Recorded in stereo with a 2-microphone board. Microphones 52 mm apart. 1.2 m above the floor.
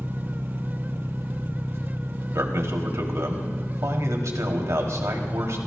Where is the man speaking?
75° right (ahead or behind), 3 m.